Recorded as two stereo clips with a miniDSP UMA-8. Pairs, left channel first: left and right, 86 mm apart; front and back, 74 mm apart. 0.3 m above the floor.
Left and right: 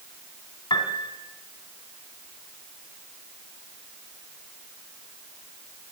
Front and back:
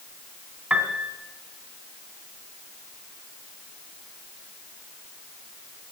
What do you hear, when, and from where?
0.7 s a piano: 105° left, 2.5 m